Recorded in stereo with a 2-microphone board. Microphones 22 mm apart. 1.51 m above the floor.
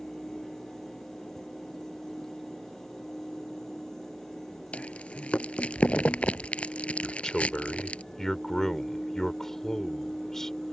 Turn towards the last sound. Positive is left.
turn(degrees=20)  # may be behind; listen again after turning